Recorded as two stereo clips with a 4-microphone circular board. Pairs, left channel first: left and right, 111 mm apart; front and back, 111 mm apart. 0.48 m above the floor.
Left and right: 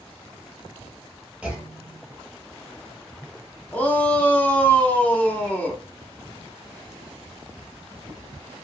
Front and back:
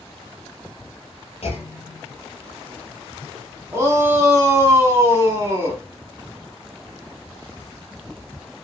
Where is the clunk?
10° right, 1.1 m.